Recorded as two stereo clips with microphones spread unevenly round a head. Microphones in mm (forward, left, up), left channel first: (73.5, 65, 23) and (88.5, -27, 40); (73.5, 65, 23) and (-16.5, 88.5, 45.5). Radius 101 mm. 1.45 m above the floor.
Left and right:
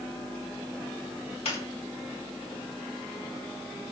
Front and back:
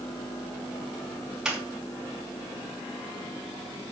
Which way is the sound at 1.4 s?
85° left.